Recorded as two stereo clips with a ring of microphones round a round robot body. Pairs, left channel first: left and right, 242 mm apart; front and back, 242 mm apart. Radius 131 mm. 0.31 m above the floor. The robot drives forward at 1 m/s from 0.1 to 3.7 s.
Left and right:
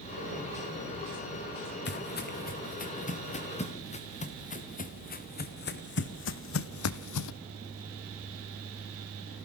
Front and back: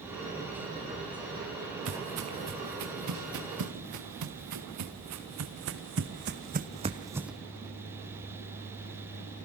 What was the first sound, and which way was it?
Footsteps, 135° left.